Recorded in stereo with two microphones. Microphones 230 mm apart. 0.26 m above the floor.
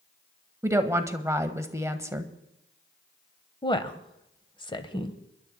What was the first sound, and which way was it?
A woman speaking, 10° right (ahead or behind).